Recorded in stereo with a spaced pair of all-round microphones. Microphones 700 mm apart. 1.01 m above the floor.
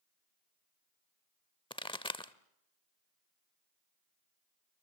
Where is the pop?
10° left (ahead or behind), 0.8 m.